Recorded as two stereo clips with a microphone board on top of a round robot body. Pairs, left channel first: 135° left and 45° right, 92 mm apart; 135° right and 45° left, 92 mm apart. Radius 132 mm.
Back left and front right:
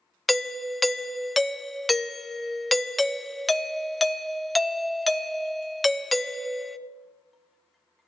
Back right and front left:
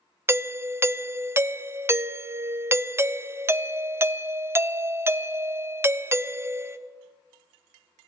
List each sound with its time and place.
0.3 s a doorbell: 45° left, 0.6 m